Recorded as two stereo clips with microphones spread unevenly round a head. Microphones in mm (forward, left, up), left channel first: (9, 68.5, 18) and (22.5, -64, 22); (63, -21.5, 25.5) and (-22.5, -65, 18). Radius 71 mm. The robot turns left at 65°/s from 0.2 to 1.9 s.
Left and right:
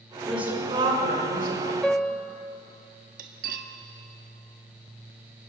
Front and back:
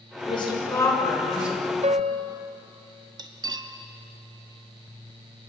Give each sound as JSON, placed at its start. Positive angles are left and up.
{"t": 0.3, "sound": "a woman speaking", "azimuth_deg": 5, "distance_m": 6.5}
{"t": 1.8, "sound": "a piano", "azimuth_deg": 180, "distance_m": 1.1}
{"t": 3.2, "sound": "cutlery clinking", "azimuth_deg": -115, "distance_m": 1.6}